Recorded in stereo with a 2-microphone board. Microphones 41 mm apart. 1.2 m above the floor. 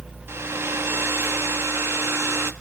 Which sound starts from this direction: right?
A hair dryer, at 0.3 s.